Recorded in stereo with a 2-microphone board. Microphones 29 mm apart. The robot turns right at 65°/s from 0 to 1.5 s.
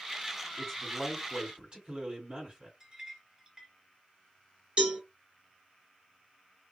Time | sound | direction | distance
0.6 | a man speaking | straight behind | 2 m
2.8 | a clink | 20° right (ahead or behind) | 0.9 m
4.8 | a cowbell | 40° right (ahead or behind) | 1.5 m